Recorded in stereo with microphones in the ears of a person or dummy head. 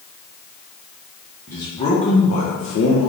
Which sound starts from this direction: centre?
A man speaking, at 1.5 s.